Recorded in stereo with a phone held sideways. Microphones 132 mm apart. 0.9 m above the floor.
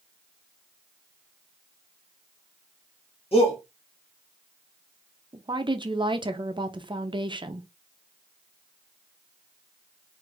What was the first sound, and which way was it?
A shout, 45° left (ahead or behind).